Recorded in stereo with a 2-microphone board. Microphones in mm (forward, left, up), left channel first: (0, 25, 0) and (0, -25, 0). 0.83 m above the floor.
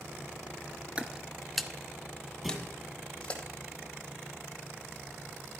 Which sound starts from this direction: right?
Footsteps, at 1.0 s.